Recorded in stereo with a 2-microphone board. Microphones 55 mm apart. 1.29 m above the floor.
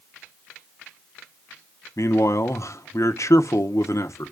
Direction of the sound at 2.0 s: 65° left (ahead or behind).